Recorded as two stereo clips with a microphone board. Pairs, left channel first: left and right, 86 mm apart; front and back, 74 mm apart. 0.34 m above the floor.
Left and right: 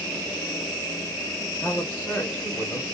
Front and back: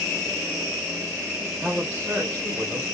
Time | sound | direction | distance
1.6 | a man speaking | 115° left | 1.0 m